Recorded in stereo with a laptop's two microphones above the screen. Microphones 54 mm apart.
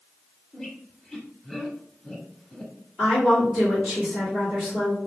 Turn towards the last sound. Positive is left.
turn(degrees=0)  # may be behind; listen again after turning